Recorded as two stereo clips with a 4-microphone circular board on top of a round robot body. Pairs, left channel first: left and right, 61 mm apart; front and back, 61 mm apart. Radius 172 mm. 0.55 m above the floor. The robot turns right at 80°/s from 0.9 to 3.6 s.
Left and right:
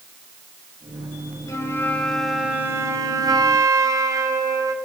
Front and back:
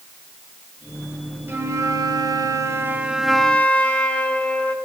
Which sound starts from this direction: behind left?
A flute, at 1.5 s.